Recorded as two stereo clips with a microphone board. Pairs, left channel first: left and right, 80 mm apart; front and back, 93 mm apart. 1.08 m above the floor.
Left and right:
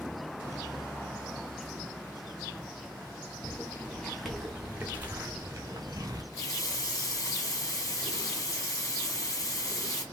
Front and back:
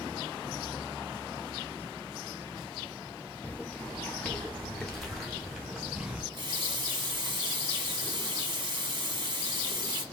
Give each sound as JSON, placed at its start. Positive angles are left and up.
{"t": 3.4, "sound": "footsteps", "azimuth_deg": 55, "distance_m": 1.1}
{"t": 6.3, "sound": "a running tap", "azimuth_deg": 140, "distance_m": 0.9}